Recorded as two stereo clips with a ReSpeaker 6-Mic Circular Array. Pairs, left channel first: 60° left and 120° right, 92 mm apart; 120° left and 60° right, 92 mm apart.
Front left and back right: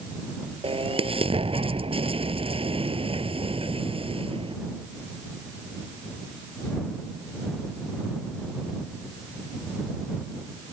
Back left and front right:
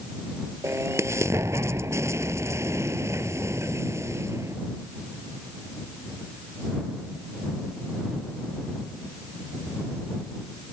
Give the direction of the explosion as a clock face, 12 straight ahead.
4 o'clock.